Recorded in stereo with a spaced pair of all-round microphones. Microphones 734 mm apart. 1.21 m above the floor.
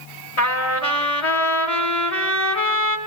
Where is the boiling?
I don't hear boiling.